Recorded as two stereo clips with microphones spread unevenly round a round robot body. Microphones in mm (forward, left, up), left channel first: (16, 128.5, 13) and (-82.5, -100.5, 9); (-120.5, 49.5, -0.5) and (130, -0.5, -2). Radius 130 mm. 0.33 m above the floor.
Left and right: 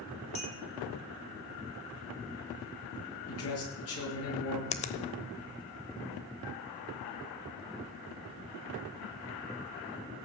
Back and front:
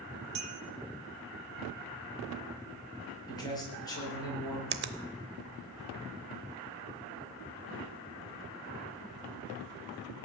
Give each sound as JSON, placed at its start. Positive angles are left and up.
{"t": 0.3, "sound": "a clink", "azimuth_deg": 0, "distance_m": 3.0}
{"t": 3.3, "sound": "a man speaking", "azimuth_deg": 95, "distance_m": 6.0}
{"t": 4.7, "sound": "a finger snap", "azimuth_deg": 10, "distance_m": 0.8}